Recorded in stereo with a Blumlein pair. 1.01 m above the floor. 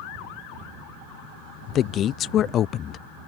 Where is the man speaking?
30° left.